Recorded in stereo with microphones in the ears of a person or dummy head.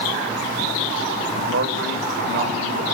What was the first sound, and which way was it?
A man speaking, 65° right (ahead or behind).